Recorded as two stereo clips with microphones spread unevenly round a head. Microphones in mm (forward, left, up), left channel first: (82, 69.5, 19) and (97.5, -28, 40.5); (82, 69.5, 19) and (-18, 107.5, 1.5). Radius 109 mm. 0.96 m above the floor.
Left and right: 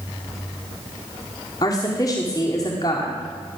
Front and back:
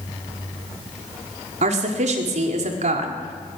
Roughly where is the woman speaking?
Behind.